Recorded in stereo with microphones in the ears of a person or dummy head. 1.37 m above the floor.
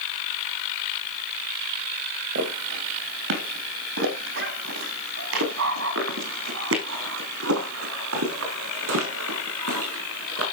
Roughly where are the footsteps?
Right.